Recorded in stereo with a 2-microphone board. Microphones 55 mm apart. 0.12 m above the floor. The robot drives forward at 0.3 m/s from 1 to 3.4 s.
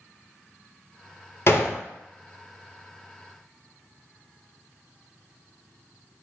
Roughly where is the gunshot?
Left.